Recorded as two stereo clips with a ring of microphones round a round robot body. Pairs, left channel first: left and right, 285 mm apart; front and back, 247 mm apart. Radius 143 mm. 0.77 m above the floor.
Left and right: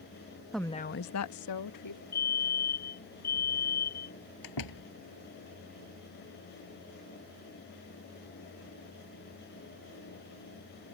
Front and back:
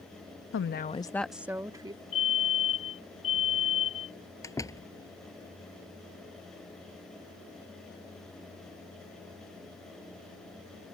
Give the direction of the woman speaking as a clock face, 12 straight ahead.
12 o'clock.